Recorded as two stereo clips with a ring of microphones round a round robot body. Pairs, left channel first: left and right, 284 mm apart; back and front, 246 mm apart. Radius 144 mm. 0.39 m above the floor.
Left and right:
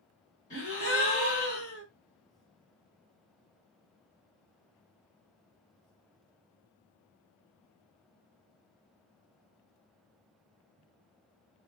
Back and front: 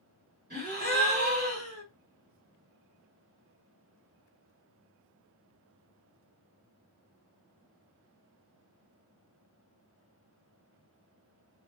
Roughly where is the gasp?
Ahead left.